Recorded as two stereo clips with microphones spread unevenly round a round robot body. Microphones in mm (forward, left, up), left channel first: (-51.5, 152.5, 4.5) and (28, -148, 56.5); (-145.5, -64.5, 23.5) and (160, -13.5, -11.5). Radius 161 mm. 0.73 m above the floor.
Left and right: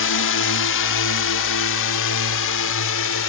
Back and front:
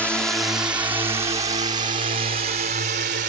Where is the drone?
100° left; by 3.3 s 70° left.